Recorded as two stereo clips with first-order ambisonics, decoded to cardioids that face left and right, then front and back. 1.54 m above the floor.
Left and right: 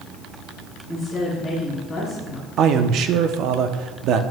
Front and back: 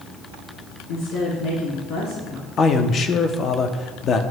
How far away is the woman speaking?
About 3.5 m.